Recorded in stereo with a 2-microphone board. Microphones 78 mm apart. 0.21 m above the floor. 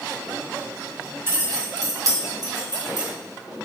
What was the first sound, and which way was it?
Keys jangling, 30° right (ahead or behind).